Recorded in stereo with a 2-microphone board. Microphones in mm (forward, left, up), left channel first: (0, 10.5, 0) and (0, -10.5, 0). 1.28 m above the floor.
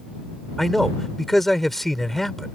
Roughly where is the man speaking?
Centre.